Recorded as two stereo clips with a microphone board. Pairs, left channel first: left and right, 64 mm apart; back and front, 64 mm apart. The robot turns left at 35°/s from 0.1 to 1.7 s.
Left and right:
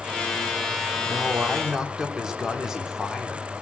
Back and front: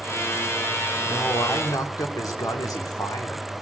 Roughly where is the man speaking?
Behind right.